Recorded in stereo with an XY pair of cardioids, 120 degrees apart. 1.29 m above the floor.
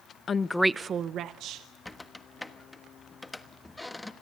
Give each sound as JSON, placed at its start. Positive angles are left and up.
{"t": 0.3, "sound": "a woman speaking", "azimuth_deg": 40, "distance_m": 0.7}
{"t": 1.9, "sound": "a squeak", "azimuth_deg": 15, "distance_m": 1.3}